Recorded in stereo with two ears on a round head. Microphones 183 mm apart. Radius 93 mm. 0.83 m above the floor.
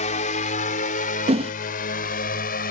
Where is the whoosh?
30° right (ahead or behind).